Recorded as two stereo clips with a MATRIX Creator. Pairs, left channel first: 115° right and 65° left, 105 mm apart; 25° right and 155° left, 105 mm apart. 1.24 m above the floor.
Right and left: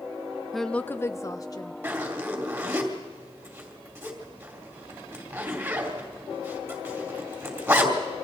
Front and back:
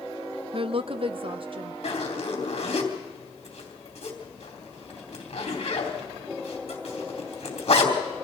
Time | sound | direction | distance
0.5 | a woman speaking | 155° left | 0.5 m
1.8 | a zipper | straight ahead | 3 m